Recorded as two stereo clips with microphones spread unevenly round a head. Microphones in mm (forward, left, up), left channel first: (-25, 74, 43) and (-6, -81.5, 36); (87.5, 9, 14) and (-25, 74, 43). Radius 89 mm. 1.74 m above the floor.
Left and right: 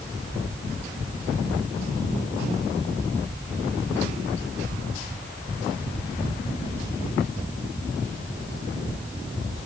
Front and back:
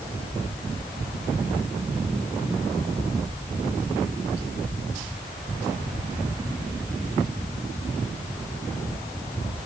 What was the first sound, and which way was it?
Only background noise.